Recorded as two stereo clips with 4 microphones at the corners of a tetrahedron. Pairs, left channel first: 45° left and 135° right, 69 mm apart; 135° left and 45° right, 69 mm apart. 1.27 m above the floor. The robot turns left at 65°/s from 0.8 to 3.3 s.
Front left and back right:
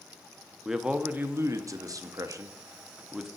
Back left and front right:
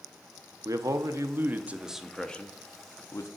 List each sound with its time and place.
0.7 s a man speaking: 55° right, 0.6 m; by 3.3 s 145° left, 0.6 m